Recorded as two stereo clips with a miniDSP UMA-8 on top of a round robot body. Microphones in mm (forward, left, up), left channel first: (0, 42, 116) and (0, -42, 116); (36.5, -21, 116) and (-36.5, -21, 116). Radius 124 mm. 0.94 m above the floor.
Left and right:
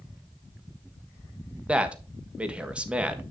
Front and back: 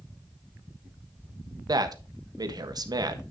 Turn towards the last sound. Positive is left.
turn(degrees=-165)